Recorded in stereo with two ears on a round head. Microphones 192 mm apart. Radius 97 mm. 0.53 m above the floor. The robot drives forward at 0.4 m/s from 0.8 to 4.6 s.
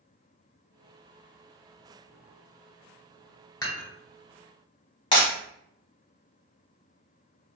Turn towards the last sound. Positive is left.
turn(degrees=25)  # may be behind; listen again after turning